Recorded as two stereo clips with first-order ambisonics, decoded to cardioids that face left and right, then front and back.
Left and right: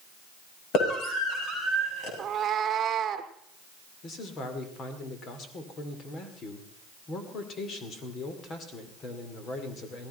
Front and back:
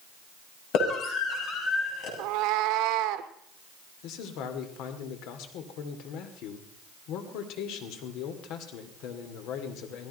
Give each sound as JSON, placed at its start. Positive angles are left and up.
{"t": 0.7, "sound": "a scream", "azimuth_deg": 45, "distance_m": 6.5}
{"t": 2.2, "sound": "a cat meowing", "azimuth_deg": -155, "distance_m": 0.9}
{"t": 4.0, "sound": "a man speaking", "azimuth_deg": 30, "distance_m": 2.0}